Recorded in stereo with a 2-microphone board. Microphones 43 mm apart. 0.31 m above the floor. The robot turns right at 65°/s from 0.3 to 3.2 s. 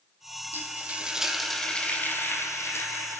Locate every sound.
0.5 s frying: 60° right, 1.8 m; by 3.2 s 115° left, 1.8 m